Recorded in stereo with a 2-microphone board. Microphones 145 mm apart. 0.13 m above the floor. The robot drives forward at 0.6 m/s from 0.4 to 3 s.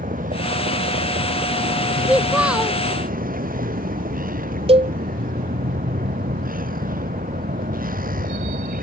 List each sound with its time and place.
0.0 s a vehicle: 70° right (ahead or behind); by 8.8 s 75° right (ahead or behind)
2.1 s a child speaking: 5° right (ahead or behind)
4.7 s a cowbell: 40° right (ahead or behind)